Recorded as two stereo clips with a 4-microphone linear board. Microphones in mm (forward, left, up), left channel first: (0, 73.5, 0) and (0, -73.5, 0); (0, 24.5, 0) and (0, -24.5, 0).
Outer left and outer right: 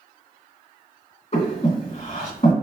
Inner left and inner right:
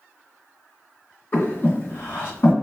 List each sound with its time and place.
1.3 s breathing: 45° left (ahead or behind), 1.7 m